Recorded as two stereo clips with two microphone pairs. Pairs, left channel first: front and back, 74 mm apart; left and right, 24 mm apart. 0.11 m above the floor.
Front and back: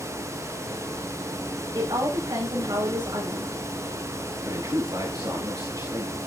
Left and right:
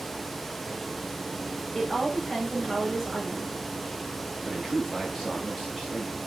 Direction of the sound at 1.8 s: 170° right.